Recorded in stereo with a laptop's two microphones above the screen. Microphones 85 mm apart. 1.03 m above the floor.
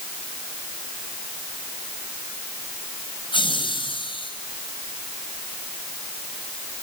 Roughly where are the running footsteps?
No running footsteps in this recording.